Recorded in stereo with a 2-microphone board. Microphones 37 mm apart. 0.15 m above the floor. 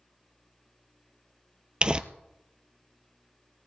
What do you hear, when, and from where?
1.8 s crumpling: 30° right (ahead or behind), 0.7 m